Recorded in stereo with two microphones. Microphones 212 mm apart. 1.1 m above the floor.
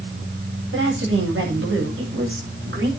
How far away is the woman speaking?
About 8 m.